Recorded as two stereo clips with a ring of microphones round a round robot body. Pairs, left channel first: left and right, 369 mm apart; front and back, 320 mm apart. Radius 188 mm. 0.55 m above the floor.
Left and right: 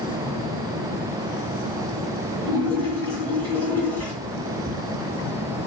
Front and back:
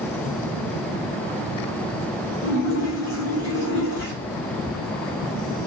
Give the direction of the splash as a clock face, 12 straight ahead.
11 o'clock.